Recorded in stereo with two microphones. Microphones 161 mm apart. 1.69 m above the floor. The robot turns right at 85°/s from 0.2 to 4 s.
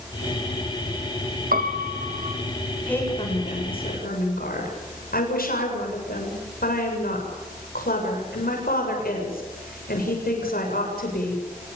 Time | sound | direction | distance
1.5 | a piano | 110° right | 2 m
2.9 | a woman speaking | 5° left | 7.5 m